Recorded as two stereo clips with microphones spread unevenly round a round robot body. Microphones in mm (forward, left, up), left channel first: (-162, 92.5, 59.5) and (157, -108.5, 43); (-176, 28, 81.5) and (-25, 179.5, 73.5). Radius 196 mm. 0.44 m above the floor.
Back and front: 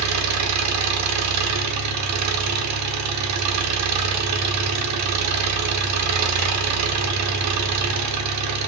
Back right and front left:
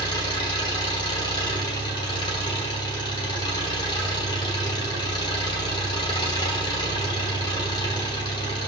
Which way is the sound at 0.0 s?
65° right.